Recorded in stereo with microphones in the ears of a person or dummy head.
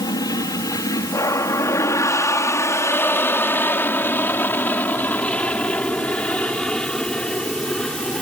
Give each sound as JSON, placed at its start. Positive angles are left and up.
{"t": 0.0, "sound": "an aircraft", "side_deg": 20}